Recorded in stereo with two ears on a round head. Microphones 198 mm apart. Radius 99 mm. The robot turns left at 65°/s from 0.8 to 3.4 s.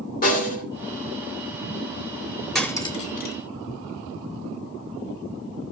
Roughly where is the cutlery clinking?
Centre.